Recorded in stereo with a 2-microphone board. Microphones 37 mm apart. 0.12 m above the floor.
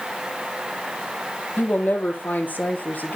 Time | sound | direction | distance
1.6 | a woman speaking | 65° left (ahead or behind) | 3.5 m